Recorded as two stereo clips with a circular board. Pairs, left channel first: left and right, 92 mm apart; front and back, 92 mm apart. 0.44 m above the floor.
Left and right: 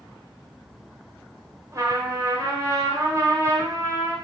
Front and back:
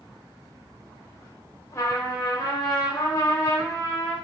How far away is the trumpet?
About 2 m.